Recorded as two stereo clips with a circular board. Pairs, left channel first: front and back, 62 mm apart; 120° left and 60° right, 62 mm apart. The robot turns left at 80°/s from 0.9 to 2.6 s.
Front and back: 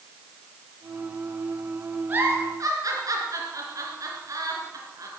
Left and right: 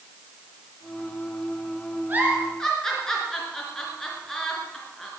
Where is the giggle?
120° right, 3.5 m; by 5.1 s 160° right, 3.5 m.